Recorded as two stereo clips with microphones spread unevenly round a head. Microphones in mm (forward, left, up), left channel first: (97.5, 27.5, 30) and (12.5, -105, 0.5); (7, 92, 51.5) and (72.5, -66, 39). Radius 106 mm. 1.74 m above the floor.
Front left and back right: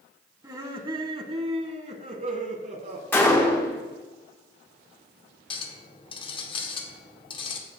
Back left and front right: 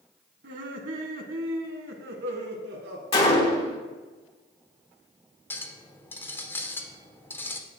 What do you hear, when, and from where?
0.4 s laughter: 55° right, 1.4 m; by 3.0 s 90° right, 2 m
3.1 s a gunshot: 110° left, 1.0 m
5.5 s a clink: 45° left, 0.8 m